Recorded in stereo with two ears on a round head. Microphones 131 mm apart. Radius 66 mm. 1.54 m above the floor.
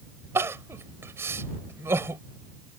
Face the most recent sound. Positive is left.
turn(degrees=-15)  # may be behind; listen again after turning